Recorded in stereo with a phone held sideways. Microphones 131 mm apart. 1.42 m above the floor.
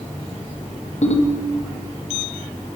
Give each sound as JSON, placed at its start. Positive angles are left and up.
{"t": 1.0, "sound": "a ringtone", "side_deg": 65, "distance_m": 1.6}